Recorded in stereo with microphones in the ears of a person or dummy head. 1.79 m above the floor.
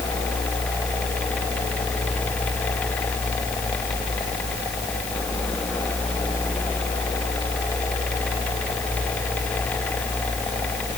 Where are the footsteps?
No footsteps in this recording.